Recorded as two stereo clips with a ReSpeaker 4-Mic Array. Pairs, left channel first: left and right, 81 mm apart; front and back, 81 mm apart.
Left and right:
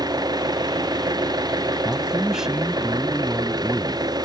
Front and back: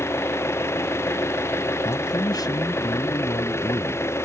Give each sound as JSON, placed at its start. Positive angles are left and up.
{"t": 0.0, "sound": "an engine running", "azimuth_deg": -55}
{"t": 1.9, "sound": "a man speaking", "azimuth_deg": -10}